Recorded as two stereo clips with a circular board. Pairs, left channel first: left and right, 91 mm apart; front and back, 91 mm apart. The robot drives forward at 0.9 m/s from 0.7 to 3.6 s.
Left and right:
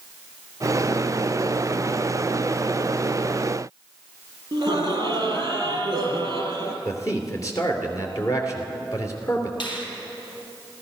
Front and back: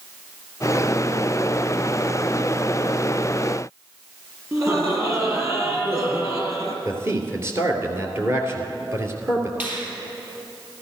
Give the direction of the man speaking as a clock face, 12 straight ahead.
8 o'clock.